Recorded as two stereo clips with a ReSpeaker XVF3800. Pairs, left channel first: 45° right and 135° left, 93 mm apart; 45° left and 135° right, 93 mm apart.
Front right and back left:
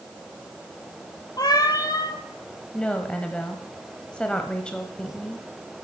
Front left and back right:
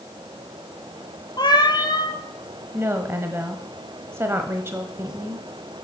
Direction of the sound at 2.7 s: 115° right.